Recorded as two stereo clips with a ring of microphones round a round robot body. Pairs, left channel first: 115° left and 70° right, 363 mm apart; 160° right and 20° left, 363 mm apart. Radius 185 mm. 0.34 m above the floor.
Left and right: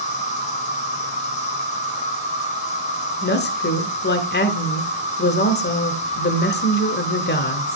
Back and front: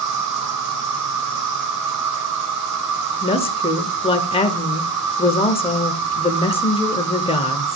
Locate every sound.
0.0 s an insect: 45° left, 2.5 m
3.2 s a woman speaking: 140° left, 1.0 m